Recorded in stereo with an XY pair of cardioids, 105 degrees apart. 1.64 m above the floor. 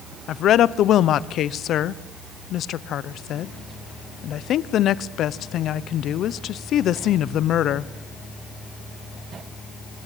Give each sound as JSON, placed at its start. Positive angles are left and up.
{"t": 0.3, "sound": "a woman speaking", "azimuth_deg": 70, "distance_m": 0.8}